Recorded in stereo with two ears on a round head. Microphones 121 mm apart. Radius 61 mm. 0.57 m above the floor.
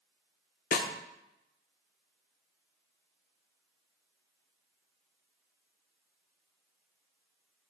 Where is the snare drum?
60° left (ahead or behind), 0.6 m.